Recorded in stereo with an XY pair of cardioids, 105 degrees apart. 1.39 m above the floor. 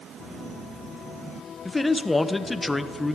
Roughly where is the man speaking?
Ahead.